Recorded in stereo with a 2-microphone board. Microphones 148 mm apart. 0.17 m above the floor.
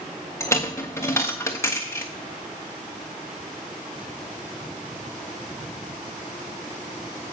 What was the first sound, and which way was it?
A dropped coin, 20° left (ahead or behind).